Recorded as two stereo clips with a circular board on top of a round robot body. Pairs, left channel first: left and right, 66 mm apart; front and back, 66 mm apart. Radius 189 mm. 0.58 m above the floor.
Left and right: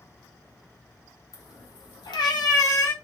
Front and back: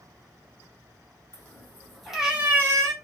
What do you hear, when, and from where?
1.3 s a cat meowing: 60° left, 0.9 m; by 2.9 s 140° left, 0.7 m